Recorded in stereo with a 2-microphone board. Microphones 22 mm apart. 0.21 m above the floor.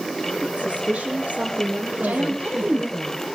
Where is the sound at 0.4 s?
65° right (ahead or behind), 8 m; by 2.9 s 70° right (ahead or behind), 5 m.